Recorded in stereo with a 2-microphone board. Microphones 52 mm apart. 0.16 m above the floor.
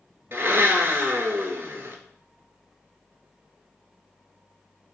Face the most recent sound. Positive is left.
turn(degrees=-45)  # may be behind; listen again after turning